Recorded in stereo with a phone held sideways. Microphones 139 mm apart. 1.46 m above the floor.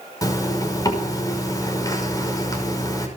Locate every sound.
0.2 s a zipper: 25° left (ahead or behind), 5.5 m